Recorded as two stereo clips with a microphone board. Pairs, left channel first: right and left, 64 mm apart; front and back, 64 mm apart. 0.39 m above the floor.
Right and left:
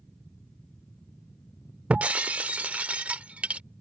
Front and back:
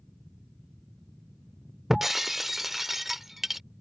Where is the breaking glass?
105° left.